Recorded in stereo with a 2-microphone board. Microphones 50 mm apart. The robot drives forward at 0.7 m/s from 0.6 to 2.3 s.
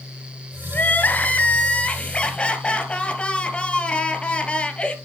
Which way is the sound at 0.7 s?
40° left (ahead or behind).